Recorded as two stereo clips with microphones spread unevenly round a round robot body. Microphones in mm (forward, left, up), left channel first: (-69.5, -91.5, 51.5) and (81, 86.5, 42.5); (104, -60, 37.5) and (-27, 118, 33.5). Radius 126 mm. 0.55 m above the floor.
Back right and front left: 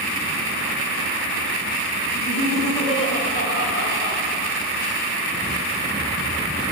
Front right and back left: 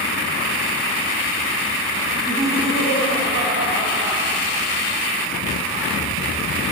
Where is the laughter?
110° right, 1.2 m; by 4.2 s 155° right, 3 m.